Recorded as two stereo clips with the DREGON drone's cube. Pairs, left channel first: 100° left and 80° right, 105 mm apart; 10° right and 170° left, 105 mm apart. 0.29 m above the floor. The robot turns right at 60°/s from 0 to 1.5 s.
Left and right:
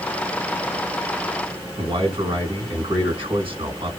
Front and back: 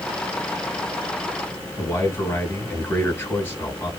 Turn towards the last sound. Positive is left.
turn(degrees=-70)